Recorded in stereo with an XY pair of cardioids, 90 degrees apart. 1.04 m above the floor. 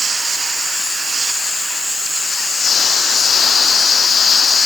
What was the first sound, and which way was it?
Only background noise.